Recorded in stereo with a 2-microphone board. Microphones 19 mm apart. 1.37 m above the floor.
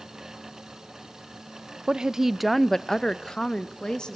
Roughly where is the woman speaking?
Right.